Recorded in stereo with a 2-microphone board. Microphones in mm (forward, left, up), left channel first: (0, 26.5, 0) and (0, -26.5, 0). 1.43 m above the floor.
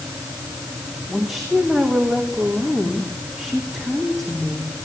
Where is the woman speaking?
Centre (ahead or behind), 3 m.